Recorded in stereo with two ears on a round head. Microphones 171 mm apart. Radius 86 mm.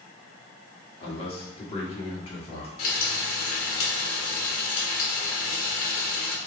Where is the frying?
80° left, 1.7 m.